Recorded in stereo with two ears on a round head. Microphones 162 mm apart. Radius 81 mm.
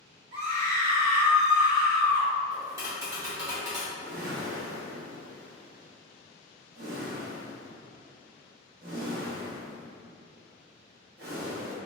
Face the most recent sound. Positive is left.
turn(degrees=-55)  # may be behind; listen again after turning